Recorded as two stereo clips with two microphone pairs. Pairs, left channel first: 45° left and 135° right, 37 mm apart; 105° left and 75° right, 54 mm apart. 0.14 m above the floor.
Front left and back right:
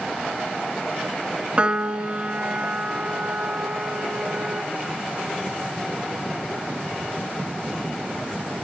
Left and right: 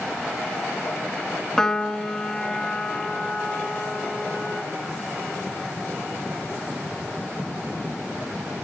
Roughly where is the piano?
Behind.